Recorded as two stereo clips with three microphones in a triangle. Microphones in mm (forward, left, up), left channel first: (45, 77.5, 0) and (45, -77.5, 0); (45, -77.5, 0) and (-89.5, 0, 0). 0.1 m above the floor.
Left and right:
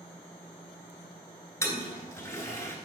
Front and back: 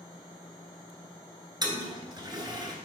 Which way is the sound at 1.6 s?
140° left.